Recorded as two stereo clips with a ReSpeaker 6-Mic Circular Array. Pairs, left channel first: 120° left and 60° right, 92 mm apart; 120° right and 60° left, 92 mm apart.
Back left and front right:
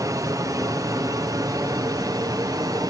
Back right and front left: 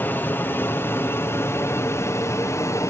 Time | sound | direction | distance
0.0 | an aircraft | 65° right | ?